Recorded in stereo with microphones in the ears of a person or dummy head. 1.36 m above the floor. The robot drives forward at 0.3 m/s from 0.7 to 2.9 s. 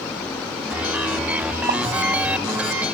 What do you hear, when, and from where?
1.7 s a pop: 40° right (ahead or behind), 1.2 m